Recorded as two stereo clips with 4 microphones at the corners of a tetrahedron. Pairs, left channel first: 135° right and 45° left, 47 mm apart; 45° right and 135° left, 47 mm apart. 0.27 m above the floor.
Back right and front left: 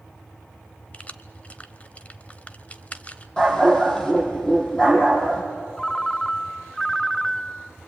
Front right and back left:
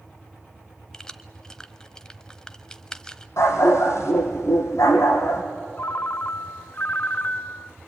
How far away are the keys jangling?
About 0.8 m.